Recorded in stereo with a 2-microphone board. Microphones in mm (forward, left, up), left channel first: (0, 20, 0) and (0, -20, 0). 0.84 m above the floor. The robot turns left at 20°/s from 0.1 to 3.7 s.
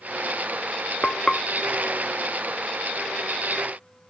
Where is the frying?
20° left (ahead or behind), 0.7 m; by 1.4 s 15° left (ahead or behind), 0.7 m.